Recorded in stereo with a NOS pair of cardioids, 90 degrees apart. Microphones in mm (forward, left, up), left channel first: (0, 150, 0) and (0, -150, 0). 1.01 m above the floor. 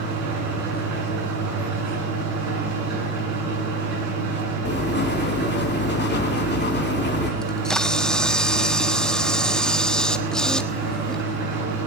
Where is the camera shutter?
Straight ahead, 1.0 m.